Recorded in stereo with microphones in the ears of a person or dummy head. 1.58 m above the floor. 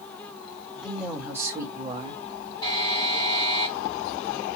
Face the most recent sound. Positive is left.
turn(degrees=20)  # may be behind; listen again after turning